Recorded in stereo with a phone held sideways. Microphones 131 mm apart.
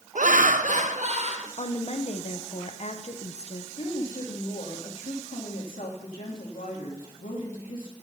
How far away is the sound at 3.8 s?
About 2.5 m.